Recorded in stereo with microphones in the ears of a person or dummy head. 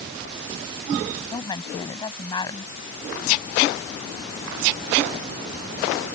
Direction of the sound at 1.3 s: 25° left (ahead or behind).